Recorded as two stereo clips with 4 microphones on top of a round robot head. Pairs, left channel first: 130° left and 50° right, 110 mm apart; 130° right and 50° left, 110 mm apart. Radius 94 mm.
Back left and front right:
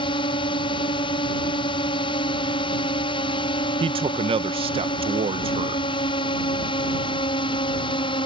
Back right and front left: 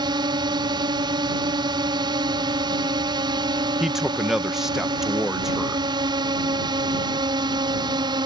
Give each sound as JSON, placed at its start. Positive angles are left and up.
{"t": 0.0, "sound": "a drone", "azimuth_deg": 95}
{"t": 3.8, "sound": "a man speaking", "azimuth_deg": -40}